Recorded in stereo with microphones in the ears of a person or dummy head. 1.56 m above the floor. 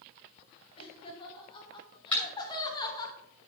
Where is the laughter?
20° left (ahead or behind), 3.5 m.